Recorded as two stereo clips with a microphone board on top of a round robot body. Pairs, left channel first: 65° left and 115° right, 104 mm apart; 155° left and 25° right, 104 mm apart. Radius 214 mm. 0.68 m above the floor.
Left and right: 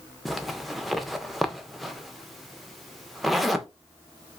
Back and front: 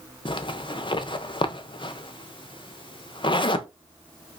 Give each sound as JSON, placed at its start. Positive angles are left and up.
{"t": 0.2, "sound": "a zipper", "azimuth_deg": 155, "distance_m": 0.7}